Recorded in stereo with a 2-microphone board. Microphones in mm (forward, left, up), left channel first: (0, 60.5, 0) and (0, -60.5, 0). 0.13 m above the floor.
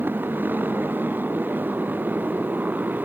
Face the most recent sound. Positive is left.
turn(degrees=-15)  # may be behind; listen again after turning